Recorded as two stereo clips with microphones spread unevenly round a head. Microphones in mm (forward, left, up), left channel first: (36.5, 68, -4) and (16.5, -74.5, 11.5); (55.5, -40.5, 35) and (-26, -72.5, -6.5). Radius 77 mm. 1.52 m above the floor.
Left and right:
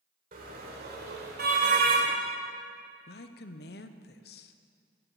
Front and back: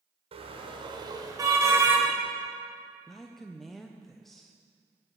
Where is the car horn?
130° right, 2 m; by 2.1 s 80° right, 3 m.